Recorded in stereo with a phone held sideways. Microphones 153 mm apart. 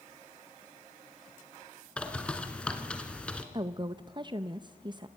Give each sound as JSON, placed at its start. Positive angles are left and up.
{"t": 2.0, "sound": "a bird", "side_deg": 5, "distance_m": 1.6}
{"t": 3.5, "sound": "a woman speaking", "side_deg": -30, "distance_m": 0.5}